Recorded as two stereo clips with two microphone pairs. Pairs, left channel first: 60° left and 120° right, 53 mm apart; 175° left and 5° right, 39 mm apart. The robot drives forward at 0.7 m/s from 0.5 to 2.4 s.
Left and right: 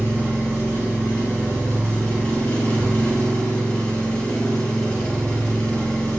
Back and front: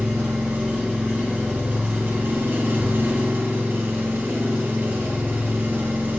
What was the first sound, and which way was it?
An engine running, straight ahead.